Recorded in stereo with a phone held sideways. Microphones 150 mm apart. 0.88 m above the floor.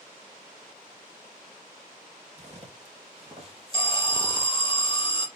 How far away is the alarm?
About 0.8 m.